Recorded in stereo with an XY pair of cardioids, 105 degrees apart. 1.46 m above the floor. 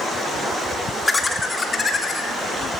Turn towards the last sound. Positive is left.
turn(degrees=35)